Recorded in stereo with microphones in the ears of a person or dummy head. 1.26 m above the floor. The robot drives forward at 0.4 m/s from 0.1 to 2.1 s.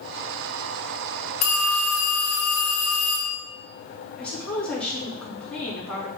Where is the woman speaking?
Centre (ahead or behind), 2.5 m.